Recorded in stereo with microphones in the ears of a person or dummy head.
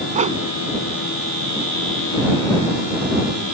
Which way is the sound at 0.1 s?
30° right (ahead or behind).